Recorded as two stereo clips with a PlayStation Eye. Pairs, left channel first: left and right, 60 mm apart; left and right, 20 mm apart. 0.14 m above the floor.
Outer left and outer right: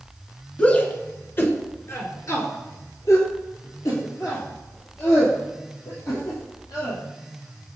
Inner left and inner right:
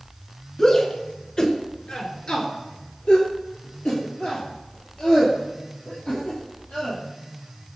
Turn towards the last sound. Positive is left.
turn(degrees=70)  # may be behind; listen again after turning